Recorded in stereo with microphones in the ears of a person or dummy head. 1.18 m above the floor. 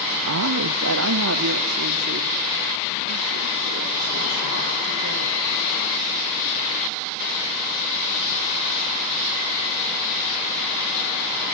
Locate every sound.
0.3 s a woman speaking: 75° right (ahead or behind), 1.0 m